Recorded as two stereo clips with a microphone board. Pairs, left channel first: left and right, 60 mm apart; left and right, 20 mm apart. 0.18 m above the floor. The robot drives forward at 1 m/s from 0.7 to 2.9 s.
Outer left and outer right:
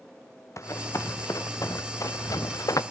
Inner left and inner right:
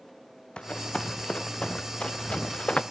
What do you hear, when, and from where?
0.6 s running footsteps: 55° left (ahead or behind), 2 m; by 2.8 s 75° left (ahead or behind), 1.1 m